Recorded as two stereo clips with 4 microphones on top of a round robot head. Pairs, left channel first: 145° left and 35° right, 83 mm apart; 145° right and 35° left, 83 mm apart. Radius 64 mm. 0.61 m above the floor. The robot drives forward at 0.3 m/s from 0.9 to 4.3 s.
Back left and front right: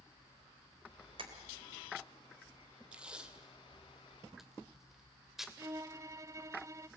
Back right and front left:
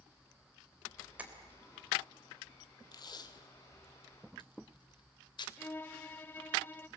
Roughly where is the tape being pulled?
Right.